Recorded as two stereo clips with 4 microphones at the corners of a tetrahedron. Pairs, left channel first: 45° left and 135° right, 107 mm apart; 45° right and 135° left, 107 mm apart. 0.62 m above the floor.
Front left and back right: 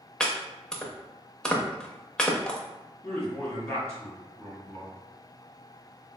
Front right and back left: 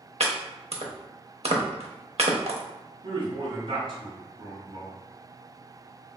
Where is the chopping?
130° left, 0.6 m.